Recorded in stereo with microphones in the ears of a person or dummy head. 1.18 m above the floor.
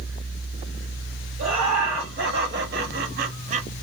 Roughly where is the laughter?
Right.